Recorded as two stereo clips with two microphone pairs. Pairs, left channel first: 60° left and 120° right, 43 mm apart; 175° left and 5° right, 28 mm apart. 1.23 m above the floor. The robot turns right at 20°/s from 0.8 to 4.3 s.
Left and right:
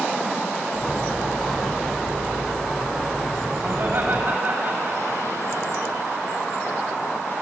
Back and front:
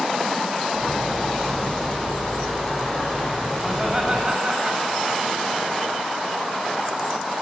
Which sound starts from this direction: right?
Laughter, at 3.6 s.